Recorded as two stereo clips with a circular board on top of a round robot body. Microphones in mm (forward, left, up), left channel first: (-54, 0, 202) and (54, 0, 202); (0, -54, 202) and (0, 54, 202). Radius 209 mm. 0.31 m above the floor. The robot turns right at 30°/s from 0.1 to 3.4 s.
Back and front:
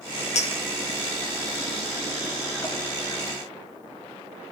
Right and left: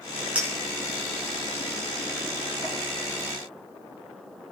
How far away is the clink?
About 5 m.